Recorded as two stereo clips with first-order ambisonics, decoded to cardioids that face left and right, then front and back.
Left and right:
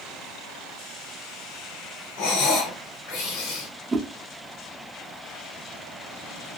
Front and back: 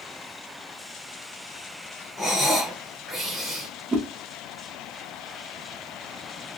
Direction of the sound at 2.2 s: 85° left.